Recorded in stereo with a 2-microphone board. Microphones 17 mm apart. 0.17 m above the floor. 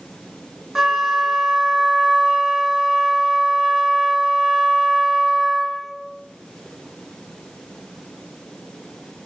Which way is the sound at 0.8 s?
20° right (ahead or behind).